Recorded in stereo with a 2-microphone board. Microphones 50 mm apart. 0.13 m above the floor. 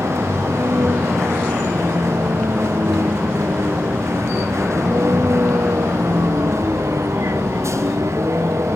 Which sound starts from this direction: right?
A vehicle, at 0.0 s.